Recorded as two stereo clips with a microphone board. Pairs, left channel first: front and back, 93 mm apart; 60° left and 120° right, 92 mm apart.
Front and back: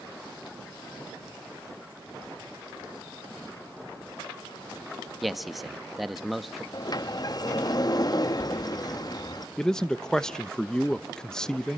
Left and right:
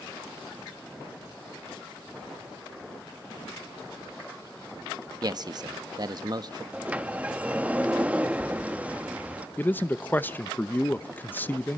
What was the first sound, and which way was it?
A man speaking, 90° right.